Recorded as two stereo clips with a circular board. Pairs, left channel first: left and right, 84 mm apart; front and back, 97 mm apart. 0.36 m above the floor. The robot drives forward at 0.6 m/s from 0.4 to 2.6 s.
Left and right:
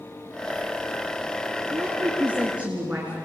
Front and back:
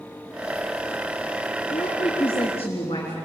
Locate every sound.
1.7 s a woman speaking: 15° right, 4.5 m